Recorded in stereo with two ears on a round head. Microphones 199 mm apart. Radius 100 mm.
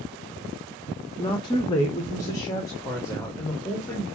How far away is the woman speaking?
About 0.8 m.